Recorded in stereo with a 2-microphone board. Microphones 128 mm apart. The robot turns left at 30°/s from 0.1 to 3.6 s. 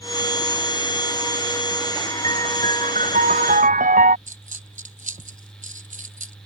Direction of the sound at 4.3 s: 70° right (ahead or behind).